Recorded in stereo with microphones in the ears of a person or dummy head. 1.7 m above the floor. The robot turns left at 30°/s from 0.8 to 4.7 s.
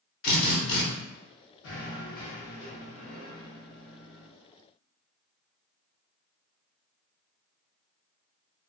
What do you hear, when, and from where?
0.2 s a drill: 55° left (ahead or behind), 0.9 m
1.6 s knocking: 75° left, 1.1 m; by 4.3 s 5° right, 1.1 m